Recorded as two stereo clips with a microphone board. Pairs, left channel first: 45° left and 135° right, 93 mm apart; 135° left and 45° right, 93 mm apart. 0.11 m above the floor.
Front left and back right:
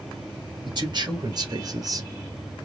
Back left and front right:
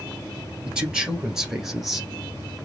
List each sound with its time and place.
0.7 s a man speaking: 125° right, 2 m; by 2.1 s 135° right, 1.7 m